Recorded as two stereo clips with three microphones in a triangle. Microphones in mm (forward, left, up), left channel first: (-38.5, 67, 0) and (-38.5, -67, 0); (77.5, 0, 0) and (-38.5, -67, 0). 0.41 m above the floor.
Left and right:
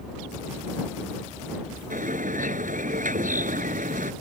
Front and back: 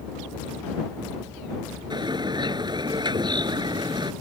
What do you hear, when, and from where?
1.9 s a bird: 95° right